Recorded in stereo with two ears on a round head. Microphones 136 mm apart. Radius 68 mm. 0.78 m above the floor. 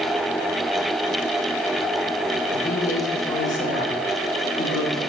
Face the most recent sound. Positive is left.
turn(degrees=60)  # may be behind; listen again after turning